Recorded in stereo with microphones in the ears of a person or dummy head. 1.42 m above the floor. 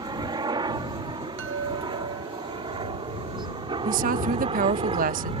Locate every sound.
0.0 s a helicopter: 20° right (ahead or behind); by 5.4 s 30° right (ahead or behind)
1.4 s a chime: 60° right (ahead or behind)
3.9 s a woman speaking: 45° right (ahead or behind)